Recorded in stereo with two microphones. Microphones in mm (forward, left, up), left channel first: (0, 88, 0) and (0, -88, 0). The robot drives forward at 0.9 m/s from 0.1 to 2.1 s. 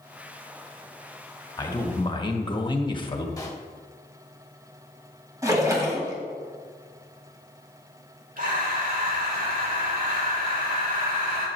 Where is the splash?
20° right (ahead or behind), 2.0 m.